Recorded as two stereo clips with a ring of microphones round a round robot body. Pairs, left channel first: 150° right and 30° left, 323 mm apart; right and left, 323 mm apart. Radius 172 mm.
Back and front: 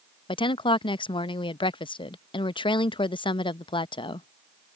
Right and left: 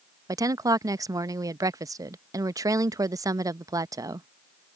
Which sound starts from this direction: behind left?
A woman speaking, at 0.3 s.